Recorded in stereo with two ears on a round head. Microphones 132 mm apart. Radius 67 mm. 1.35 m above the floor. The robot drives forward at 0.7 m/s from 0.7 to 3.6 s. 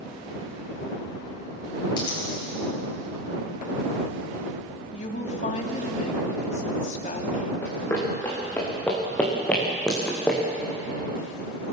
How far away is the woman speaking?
About 3 m.